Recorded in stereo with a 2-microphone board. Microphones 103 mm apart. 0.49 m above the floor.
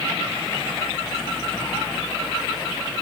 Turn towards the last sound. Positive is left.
No sound to turn to.